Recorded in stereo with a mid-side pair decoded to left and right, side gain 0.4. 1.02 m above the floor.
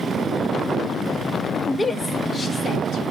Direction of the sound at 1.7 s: 25° left.